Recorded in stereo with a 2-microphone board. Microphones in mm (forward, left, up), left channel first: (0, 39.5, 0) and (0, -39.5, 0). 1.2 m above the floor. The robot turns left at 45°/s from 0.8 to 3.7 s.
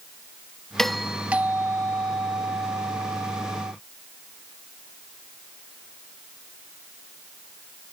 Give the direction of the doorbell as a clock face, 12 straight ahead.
12 o'clock.